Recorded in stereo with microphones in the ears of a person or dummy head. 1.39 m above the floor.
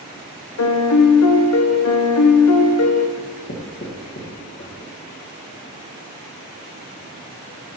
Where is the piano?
75° left (ahead or behind), 0.8 m.